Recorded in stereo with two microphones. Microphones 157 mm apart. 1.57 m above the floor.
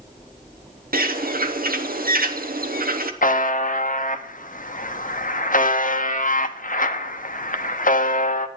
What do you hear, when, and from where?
0.9 s a bird: 85° right, 0.8 m
3.2 s a buzzer: 65° left (ahead or behind), 0.7 m